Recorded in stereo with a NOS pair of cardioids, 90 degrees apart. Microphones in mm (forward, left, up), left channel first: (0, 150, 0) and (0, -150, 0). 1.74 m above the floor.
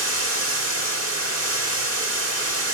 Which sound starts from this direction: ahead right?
Running water, at 0.0 s.